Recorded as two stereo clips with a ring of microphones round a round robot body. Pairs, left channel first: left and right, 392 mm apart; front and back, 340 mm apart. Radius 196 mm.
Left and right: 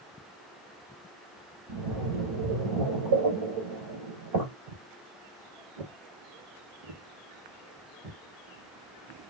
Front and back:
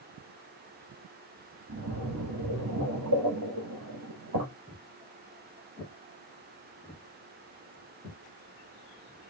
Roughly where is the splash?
Behind right.